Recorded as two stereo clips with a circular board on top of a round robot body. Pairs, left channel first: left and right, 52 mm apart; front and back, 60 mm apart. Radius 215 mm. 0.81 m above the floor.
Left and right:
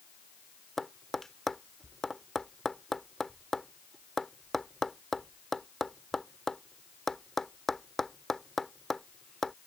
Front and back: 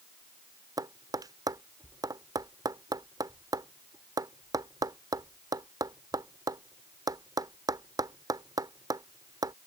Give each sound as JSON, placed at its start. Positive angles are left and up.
{"t": 0.8, "sound": "tapping", "azimuth_deg": 175}